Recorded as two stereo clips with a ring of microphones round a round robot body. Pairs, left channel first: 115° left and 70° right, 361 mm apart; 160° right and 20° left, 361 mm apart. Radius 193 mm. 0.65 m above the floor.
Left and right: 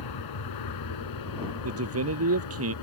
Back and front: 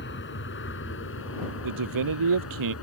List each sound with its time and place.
0.0 s an aircraft: 140° left; by 2.9 s 150° left
1.6 s a man speaking: 15° right